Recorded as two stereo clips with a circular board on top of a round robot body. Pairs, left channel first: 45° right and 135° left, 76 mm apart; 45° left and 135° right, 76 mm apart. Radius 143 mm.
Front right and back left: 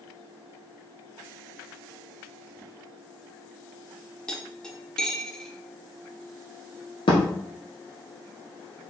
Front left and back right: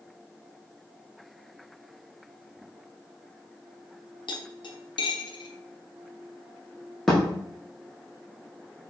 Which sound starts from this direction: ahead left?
Cutlery clinking, at 4.3 s.